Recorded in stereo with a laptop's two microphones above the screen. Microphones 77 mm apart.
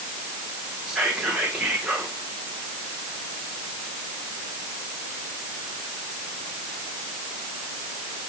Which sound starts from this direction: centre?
Whispering, at 0.9 s.